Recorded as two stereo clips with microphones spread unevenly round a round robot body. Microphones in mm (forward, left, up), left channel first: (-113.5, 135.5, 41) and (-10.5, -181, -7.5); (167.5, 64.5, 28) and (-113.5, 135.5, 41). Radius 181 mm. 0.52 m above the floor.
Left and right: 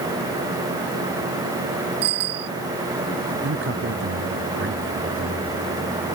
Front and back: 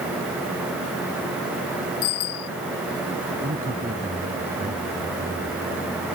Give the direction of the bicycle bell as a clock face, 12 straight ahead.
2 o'clock.